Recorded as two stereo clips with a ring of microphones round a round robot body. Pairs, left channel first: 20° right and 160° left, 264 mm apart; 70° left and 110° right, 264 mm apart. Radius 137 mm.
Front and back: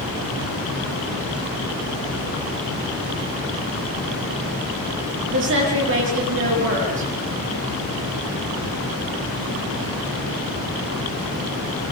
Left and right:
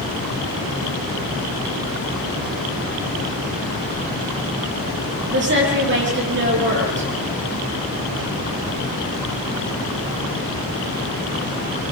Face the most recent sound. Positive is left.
turn(degrees=-160)